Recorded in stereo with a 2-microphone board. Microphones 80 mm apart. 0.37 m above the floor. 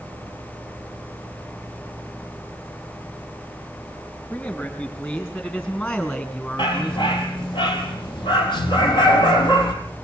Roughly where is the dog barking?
Left.